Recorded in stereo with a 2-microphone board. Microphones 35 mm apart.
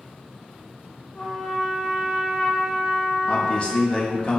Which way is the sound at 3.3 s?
30° left (ahead or behind).